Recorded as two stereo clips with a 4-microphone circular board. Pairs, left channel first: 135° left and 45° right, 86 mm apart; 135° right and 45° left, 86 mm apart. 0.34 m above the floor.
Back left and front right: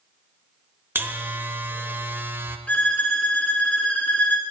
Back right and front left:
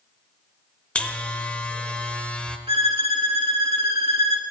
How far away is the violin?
About 0.9 m.